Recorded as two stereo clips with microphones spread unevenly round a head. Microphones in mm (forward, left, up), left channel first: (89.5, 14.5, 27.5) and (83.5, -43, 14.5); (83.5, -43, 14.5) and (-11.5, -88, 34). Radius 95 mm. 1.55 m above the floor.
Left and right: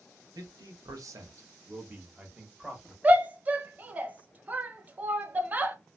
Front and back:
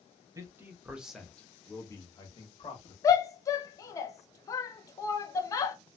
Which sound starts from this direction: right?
A man speaking, at 0.3 s.